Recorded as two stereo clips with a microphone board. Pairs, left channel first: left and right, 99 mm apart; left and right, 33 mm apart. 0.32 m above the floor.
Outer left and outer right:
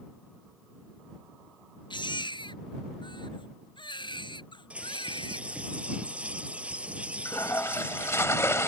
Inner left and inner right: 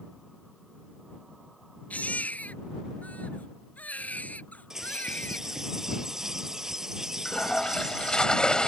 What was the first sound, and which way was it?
A baby crying, 50° left (ahead or behind).